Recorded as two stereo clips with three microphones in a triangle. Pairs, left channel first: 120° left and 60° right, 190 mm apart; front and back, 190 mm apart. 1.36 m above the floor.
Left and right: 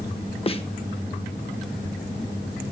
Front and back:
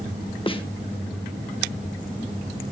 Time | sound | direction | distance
0.5 | a snare drum | 60° left | 1.2 m